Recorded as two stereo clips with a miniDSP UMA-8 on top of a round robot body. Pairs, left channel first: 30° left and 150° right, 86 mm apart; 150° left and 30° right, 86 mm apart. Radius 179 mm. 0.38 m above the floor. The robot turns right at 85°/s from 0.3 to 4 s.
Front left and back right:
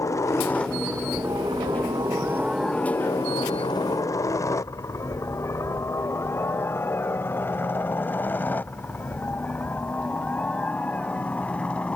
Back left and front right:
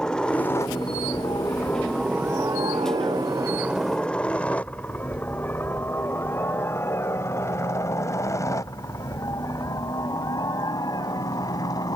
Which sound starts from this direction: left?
A helicopter, at 0.0 s.